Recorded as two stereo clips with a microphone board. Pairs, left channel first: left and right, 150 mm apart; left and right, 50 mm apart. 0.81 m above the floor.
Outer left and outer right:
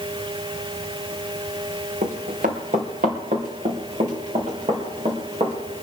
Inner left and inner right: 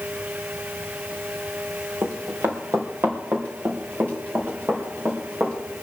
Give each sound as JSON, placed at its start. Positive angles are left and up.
{"t": 2.0, "sound": "running footsteps", "side_deg": -65, "distance_m": 3.0}